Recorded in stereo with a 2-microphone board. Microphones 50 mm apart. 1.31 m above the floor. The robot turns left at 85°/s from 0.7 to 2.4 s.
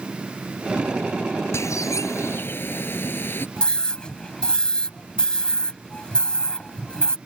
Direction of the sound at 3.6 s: 20° left (ahead or behind).